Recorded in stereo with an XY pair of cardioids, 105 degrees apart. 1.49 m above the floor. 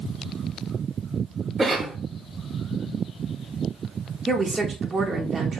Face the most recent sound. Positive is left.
turn(degrees=-30)